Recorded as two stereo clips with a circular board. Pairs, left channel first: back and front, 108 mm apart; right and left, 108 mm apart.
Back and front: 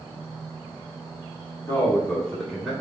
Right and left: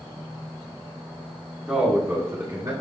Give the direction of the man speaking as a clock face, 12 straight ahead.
7 o'clock.